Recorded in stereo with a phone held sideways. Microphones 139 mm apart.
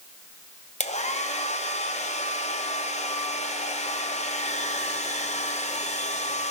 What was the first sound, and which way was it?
A hair dryer, 50° left (ahead or behind).